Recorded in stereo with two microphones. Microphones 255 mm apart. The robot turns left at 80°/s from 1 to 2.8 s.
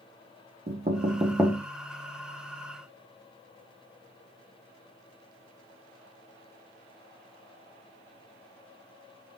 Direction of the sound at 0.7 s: 40° right (ahead or behind).